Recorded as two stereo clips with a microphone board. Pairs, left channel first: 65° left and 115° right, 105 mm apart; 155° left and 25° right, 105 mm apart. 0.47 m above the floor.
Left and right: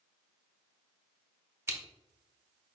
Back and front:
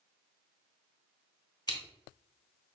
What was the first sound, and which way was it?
Scissors, 170° right.